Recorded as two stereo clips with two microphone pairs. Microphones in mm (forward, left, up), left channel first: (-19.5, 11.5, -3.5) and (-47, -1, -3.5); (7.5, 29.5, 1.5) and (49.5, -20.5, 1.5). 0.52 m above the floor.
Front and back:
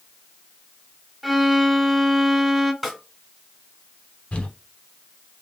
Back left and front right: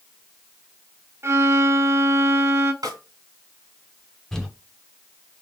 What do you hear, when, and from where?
1.2 s a violin: 75° right, 0.5 m
2.8 s a snare drum: 65° right, 1.8 m
4.3 s crumpling: 50° left, 1.0 m